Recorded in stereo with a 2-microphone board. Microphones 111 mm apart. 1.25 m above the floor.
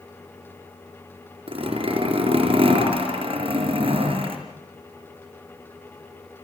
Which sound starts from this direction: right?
A zipper, at 1.5 s.